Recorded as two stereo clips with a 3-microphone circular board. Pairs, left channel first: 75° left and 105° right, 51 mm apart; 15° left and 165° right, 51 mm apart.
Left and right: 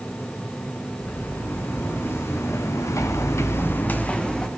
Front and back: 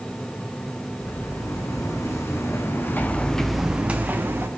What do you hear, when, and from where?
1.0 s footsteps: 25° left, 4 m; by 4.5 s 150° left, 2.0 m